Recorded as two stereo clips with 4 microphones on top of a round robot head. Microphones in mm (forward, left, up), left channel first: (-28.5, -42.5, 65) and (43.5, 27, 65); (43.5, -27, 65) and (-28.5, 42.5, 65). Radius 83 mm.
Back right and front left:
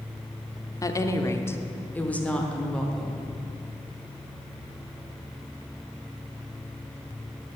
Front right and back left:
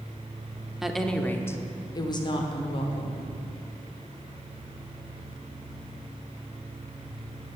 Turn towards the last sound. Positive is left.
turn(degrees=-50)